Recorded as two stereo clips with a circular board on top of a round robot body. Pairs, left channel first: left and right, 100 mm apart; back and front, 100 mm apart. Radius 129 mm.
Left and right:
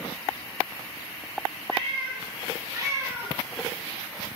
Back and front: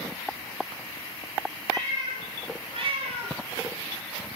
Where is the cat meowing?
55° right, 2 m; by 3.4 s 10° right, 1.0 m.